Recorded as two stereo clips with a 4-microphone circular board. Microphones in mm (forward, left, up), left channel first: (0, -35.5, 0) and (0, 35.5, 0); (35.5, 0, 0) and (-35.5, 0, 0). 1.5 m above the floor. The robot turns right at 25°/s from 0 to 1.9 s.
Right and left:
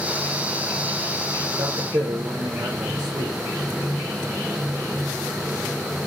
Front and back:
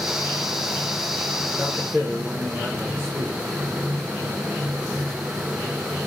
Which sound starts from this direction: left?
A man speaking, at 1.5 s.